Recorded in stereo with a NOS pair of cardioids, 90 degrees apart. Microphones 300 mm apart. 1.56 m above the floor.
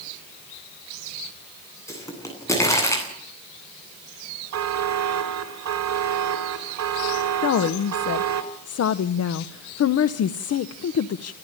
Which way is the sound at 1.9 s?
10° left.